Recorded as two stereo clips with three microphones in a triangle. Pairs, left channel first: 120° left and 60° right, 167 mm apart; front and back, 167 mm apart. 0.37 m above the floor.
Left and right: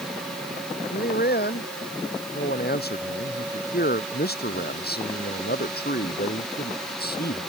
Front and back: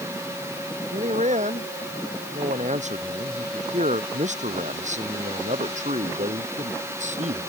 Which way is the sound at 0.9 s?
135° left.